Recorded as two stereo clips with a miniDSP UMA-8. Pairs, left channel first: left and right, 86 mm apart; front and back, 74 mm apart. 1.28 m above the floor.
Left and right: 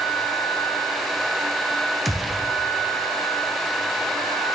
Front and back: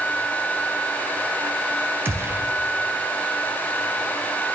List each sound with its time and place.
2.0 s a gunshot: straight behind, 0.6 m